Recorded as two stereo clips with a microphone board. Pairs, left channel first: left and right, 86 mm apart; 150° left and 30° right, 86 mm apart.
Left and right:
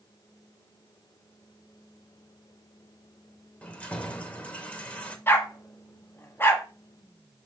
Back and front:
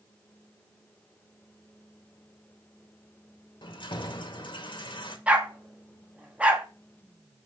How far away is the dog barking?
About 1.3 m.